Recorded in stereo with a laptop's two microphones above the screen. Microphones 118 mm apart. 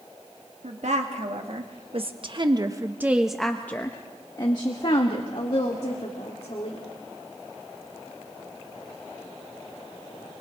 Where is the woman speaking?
70° right (ahead or behind), 2 m; by 6.8 s 60° left (ahead or behind), 3 m.